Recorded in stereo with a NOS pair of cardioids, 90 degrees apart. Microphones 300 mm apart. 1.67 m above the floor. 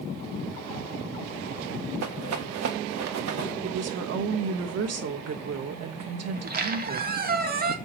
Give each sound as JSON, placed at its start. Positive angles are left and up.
{"t": 2.0, "sound": "a rattle", "azimuth_deg": -60, "distance_m": 2.5}
{"t": 3.6, "sound": "a woman speaking", "azimuth_deg": -55, "distance_m": 2.5}
{"t": 6.3, "sound": "a squeak", "azimuth_deg": -30, "distance_m": 1.9}